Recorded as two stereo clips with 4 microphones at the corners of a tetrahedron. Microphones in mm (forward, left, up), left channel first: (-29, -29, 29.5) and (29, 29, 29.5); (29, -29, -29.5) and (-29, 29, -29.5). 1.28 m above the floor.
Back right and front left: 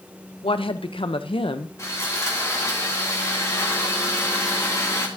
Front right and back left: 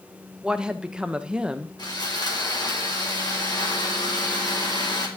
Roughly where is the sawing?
Right.